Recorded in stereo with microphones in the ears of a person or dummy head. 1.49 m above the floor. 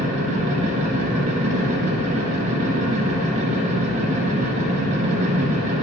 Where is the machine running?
40° right (ahead or behind), 1.1 m.